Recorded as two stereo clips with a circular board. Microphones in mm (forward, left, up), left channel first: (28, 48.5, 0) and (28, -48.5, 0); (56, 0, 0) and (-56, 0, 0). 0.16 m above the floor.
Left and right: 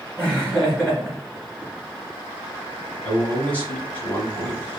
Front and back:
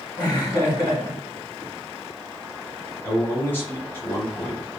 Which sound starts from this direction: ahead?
Laughter, at 0.2 s.